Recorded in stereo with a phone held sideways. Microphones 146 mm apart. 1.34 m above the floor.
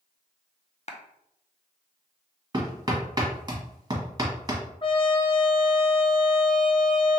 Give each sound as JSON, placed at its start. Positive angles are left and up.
{"t": 0.9, "sound": "a clap", "side_deg": 50, "distance_m": 0.6}
{"t": 2.5, "sound": "hammering", "side_deg": -25, "distance_m": 1.3}
{"t": 4.8, "sound": "a trumpet", "side_deg": 35, "distance_m": 0.6}